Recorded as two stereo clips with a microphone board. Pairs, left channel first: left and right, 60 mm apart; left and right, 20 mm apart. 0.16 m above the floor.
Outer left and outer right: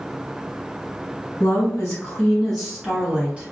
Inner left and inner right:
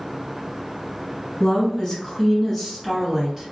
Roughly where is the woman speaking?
Left.